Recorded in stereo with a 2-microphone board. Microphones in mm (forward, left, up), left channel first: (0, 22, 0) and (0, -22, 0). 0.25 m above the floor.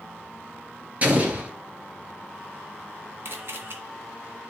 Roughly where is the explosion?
Right.